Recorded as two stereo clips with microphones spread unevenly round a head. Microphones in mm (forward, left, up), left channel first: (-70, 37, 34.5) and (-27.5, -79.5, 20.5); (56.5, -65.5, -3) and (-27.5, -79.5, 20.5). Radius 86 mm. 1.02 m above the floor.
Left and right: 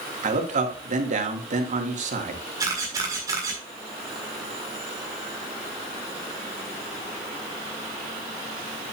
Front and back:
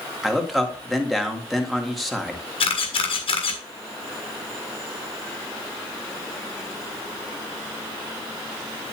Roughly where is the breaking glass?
I don't hear breaking glass.